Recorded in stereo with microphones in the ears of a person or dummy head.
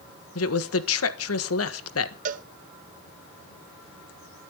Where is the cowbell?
45° right (ahead or behind), 1.0 m.